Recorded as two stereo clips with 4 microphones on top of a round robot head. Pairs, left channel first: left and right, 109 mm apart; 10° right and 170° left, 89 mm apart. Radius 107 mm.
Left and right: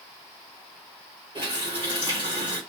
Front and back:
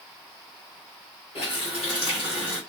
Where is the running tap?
40° right, 1.5 m.